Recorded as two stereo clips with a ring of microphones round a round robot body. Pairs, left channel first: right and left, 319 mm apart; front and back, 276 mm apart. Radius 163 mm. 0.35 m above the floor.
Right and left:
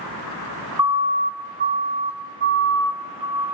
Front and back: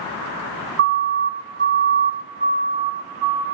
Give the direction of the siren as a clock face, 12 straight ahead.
7 o'clock.